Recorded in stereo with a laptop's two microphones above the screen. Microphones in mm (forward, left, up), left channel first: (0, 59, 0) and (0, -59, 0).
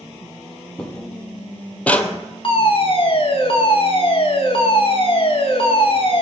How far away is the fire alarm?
About 1.7 m.